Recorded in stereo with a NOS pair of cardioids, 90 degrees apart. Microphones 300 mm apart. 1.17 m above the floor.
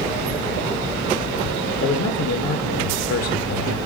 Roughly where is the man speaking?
Ahead left.